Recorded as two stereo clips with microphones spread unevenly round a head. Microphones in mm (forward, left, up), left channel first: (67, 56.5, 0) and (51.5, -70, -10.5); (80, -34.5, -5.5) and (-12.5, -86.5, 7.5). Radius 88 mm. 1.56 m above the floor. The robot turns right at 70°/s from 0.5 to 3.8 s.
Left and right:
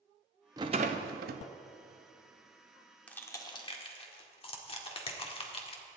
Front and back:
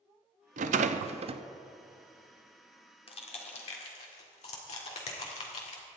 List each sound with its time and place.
0.6 s a rattle: 170° right, 0.6 m; by 1.4 s 110° right, 0.6 m
3.1 s crushing: 10° left, 1.7 m; by 5.8 s 60° left, 1.7 m